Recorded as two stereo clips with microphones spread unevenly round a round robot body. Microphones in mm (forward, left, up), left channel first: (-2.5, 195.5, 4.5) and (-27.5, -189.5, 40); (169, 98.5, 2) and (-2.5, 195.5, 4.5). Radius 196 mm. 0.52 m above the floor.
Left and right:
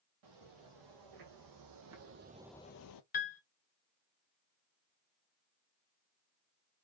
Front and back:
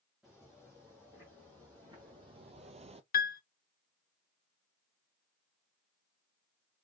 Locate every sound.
0.2 s footsteps: 120° right, 2.5 m; by 3.0 s 100° left, 0.7 m
3.1 s a piano: 20° left, 0.7 m